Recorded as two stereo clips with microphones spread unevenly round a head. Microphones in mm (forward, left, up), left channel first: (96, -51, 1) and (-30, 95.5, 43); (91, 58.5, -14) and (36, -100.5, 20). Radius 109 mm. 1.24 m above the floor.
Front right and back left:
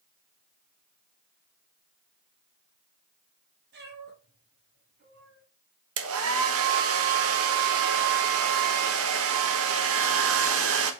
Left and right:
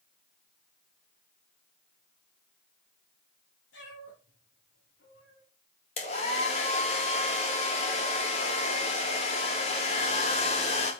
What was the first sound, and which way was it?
A cat meowing, 110° left.